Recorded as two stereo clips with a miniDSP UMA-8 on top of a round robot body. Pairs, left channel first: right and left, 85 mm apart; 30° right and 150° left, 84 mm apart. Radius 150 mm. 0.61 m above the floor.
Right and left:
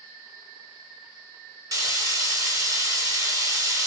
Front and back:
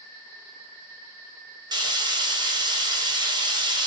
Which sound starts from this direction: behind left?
Frying, at 1.7 s.